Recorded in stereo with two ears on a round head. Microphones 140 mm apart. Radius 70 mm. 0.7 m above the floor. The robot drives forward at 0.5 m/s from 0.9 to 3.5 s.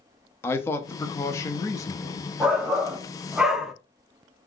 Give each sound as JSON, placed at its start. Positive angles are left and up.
{"t": 0.4, "sound": "a man speaking", "side_deg": 15, "distance_m": 0.7}
{"t": 2.4, "sound": "a shout", "side_deg": -5, "distance_m": 0.6}